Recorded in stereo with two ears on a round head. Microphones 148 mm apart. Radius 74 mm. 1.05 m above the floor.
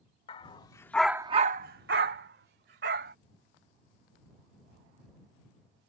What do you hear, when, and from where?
0.3 s a dog barking: 35° left (ahead or behind); by 3.1 s 65° right (ahead or behind)